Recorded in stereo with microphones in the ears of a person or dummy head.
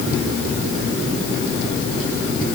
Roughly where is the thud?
I don't hear a thud.